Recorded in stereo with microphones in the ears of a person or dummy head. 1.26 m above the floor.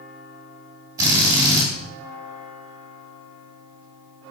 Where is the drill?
15° right (ahead or behind), 2.5 m.